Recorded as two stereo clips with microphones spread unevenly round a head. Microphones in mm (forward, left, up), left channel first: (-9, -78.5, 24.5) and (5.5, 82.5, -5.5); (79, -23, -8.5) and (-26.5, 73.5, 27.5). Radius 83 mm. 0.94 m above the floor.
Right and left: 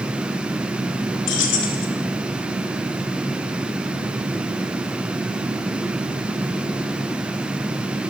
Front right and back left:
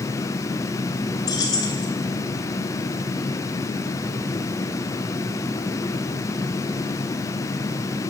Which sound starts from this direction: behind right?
Keys jangling, at 1.3 s.